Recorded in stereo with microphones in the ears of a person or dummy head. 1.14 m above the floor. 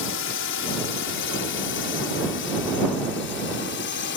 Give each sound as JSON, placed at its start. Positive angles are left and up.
{"t": 0.0, "sound": "a drone", "side_deg": 55}